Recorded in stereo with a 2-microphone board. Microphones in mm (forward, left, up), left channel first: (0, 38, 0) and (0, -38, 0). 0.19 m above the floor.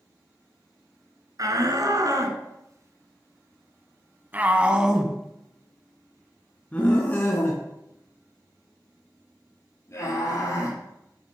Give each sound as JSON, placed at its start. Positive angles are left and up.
{"t": 1.4, "sound": "a shout", "side_deg": -55, "distance_m": 2.5}